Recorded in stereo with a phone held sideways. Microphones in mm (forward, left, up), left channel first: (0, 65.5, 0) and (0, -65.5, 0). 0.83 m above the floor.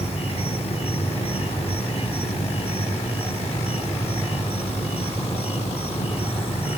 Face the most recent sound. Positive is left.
turn(degrees=50)  # may be behind; listen again after turning